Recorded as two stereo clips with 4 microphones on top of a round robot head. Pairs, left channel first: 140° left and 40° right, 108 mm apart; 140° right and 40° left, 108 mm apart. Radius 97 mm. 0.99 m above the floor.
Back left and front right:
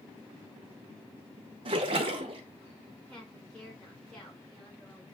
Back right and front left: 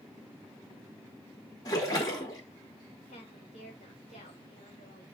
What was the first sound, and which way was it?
A splash, 80° right.